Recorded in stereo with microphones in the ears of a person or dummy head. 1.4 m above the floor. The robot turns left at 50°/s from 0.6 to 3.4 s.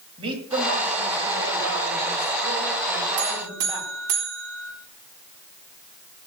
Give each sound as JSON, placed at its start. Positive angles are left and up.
{"t": 0.2, "sound": "a man speaking", "azimuth_deg": -30, "distance_m": 7.5}
{"t": 3.2, "sound": "a buzzer", "side_deg": -65, "distance_m": 4.0}